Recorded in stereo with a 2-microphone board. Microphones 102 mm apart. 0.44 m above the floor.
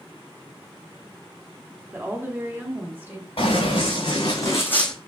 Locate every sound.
1.9 s a woman speaking: 20° right (ahead or behind), 0.9 m
3.4 s running footsteps: 60° left (ahead or behind), 2 m; by 4.9 s 5° left (ahead or behind), 0.9 m